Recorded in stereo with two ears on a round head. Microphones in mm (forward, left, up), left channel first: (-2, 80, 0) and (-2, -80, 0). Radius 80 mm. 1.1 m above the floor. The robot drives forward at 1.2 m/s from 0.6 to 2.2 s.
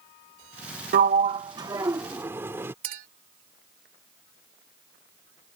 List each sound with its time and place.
0.9 s a sliding door: 50° right (ahead or behind); by 2.7 s 15° right (ahead or behind)
2.8 s a clink: 55° right (ahead or behind)